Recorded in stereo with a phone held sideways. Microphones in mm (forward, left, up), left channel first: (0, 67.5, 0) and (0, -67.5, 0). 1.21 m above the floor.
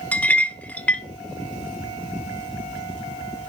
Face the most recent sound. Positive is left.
turn(degrees=10)  # may be behind; listen again after turning